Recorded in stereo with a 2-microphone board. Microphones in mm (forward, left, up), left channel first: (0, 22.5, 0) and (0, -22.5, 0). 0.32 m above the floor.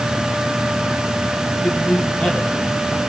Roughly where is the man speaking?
Left.